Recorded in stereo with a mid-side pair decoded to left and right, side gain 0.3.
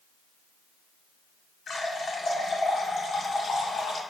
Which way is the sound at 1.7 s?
70° left.